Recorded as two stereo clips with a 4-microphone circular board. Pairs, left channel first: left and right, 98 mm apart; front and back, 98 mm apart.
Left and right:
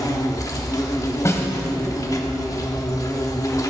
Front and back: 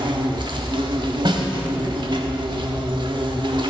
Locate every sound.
0.0 s an insect: 145° left, 1.1 m
1.2 s a snare drum: 150° left, 1.3 m